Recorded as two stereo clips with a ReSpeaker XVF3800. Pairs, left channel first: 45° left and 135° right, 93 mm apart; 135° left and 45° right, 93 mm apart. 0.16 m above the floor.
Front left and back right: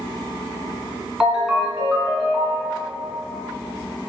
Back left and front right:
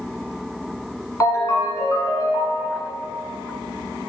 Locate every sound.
1.2 s a ringtone: 145° left, 0.6 m